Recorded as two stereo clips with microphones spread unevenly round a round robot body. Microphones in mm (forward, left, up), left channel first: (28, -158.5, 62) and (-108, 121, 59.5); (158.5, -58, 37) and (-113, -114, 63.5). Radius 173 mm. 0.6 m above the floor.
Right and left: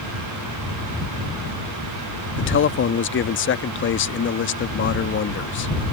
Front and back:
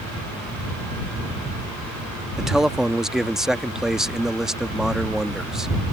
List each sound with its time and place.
2.4 s a man speaking: 75° right